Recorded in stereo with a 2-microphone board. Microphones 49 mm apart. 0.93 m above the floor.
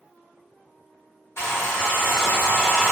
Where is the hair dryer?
75° left (ahead or behind), 1.2 m.